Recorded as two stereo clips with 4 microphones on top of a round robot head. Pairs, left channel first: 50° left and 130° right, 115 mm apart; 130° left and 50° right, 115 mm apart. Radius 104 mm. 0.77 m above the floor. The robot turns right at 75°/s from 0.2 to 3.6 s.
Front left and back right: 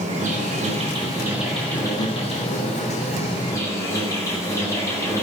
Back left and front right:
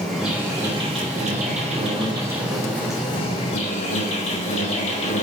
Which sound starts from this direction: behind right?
An insect, at 0.0 s.